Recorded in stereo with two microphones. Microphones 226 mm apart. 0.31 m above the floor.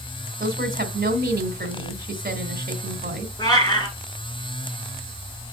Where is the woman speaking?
40° right (ahead or behind), 2 m.